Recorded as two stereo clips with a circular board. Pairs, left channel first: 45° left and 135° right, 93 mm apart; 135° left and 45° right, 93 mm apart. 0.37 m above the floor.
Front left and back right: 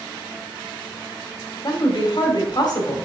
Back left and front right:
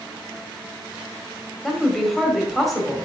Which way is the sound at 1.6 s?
45° left.